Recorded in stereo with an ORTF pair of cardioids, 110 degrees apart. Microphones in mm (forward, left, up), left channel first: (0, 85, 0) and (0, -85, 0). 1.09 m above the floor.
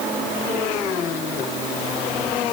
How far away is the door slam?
I don't hear a door slam.